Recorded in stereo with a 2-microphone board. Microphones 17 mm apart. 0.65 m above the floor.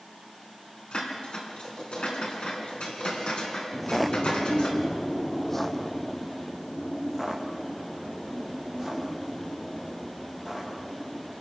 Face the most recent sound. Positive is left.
turn(degrees=5)  # may be behind; listen again after turning